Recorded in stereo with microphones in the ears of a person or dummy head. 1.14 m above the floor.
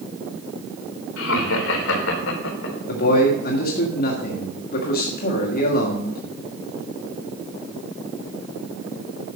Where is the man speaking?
55° left (ahead or behind), 1.7 m.